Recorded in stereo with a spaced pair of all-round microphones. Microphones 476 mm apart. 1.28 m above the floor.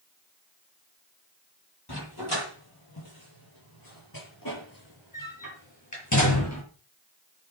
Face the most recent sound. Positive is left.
turn(degrees=35)  # may be behind; listen again after turning